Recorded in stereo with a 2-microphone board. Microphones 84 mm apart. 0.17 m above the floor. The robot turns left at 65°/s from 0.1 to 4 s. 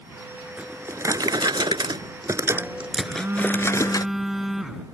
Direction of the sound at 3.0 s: 115° right.